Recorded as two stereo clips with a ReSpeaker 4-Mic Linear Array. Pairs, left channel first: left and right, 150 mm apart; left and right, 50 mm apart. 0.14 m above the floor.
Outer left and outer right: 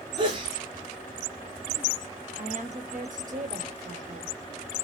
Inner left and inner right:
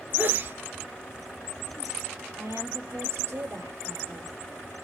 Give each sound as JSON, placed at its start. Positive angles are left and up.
{"t": 0.2, "sound": "a sneeze", "side_deg": -30, "distance_m": 2.5}
{"t": 2.4, "sound": "a woman speaking", "side_deg": -60, "distance_m": 3.5}